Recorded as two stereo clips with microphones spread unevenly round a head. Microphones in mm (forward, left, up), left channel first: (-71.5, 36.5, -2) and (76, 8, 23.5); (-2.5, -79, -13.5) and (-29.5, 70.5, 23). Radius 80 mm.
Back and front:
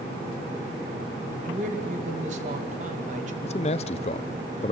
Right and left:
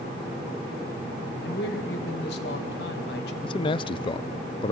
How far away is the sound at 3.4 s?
About 0.5 m.